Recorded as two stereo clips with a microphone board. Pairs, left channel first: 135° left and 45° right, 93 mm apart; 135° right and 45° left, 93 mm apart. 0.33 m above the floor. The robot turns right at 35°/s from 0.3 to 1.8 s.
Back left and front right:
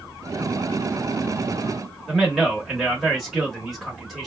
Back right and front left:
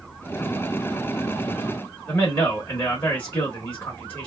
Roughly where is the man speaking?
Behind right.